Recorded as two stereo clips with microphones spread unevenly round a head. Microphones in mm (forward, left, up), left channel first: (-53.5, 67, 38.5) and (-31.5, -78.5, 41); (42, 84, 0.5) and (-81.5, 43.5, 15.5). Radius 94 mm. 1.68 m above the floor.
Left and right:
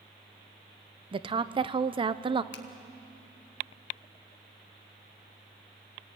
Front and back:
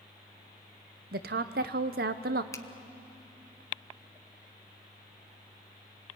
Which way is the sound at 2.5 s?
85° left.